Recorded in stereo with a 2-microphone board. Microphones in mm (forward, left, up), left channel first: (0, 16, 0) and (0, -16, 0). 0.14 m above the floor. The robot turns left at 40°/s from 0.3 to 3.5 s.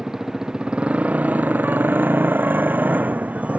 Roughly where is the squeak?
No squeak in this recording.